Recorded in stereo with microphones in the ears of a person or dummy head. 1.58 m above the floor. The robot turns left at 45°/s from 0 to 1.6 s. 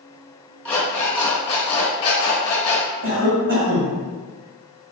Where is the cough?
55° right (ahead or behind), 1.1 m.